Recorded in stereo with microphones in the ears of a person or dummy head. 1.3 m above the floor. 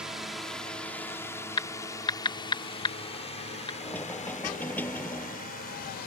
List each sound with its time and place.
0.0 s a drone: 5° right (ahead or behind); by 6.1 s 45° left (ahead or behind)
1.6 s typing on a keyboard: 20° left (ahead or behind)
3.8 s knocking: 5° left (ahead or behind)